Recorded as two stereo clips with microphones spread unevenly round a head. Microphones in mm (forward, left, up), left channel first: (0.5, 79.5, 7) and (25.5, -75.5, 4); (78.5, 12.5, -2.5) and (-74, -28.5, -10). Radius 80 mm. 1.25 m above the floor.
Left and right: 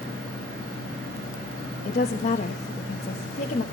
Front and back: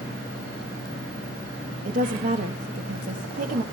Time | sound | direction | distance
1.9 | a woman speaking | 150° left | 1.4 m